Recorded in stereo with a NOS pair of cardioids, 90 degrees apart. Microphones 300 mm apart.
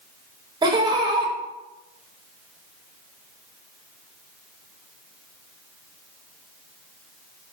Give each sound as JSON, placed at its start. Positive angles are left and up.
{"t": 0.6, "sound": "laughter", "azimuth_deg": -15, "distance_m": 0.6}